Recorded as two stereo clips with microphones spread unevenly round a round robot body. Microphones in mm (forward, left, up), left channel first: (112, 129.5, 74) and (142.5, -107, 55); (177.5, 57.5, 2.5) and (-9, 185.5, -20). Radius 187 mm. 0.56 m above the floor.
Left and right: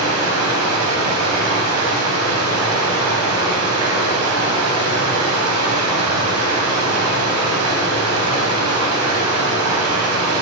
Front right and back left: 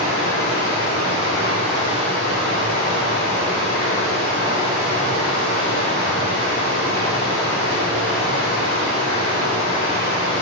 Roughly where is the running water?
Right.